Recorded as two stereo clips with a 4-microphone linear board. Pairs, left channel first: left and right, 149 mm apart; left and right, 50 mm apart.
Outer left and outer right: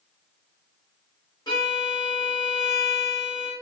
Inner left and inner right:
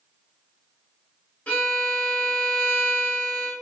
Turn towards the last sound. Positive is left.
turn(degrees=25)  # may be behind; listen again after turning